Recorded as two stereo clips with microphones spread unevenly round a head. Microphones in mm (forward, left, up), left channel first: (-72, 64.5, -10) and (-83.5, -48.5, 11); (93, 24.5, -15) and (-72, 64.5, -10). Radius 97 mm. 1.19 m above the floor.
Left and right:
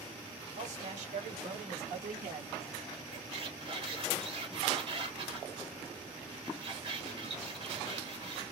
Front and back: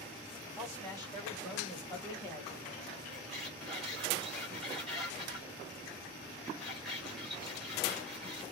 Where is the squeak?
100° right, 1.5 m.